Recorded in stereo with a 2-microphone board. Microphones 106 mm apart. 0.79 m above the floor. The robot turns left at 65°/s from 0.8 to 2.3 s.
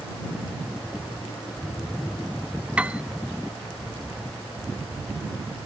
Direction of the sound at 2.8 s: 10° right (ahead or behind).